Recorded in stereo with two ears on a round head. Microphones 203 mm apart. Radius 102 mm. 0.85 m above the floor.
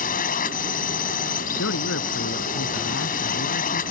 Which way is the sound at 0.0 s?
40° left (ahead or behind).